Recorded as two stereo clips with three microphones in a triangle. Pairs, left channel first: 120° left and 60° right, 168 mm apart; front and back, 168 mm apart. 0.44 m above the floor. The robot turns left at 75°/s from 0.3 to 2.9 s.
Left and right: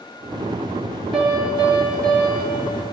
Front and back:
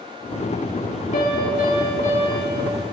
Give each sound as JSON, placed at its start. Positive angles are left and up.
{"t": 1.1, "sound": "a piano", "azimuth_deg": 30, "distance_m": 1.7}